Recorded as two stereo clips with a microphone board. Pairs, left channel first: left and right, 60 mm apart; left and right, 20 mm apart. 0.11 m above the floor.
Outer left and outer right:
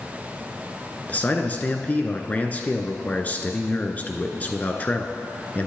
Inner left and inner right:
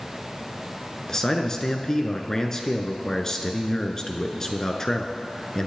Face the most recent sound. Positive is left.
turn(degrees=25)  # may be behind; listen again after turning